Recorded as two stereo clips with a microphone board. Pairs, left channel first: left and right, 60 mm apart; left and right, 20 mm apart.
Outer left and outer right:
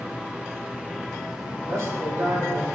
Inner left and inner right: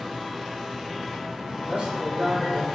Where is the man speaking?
60° right (ahead or behind), 6 m.